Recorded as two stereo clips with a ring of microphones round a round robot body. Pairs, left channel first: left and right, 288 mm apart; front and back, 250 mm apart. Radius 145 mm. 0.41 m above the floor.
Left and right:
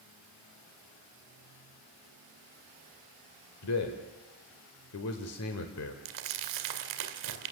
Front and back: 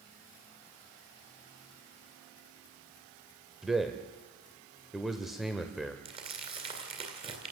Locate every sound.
3.6 s a man speaking: 90° left, 1.5 m
6.0 s crumpling: 105° right, 2 m